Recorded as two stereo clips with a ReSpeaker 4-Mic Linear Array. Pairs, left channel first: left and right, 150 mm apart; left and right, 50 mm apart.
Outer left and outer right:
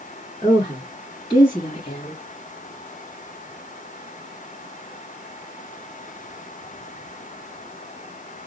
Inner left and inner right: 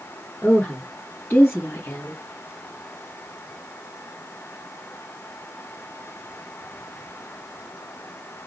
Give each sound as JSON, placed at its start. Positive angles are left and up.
{"t": 0.4, "sound": "a woman speaking", "side_deg": 30, "distance_m": 3.0}